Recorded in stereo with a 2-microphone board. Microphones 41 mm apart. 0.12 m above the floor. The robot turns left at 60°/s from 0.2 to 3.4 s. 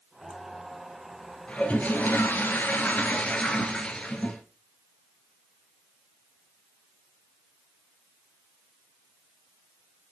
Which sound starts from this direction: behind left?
A toilet flushing, at 1.5 s.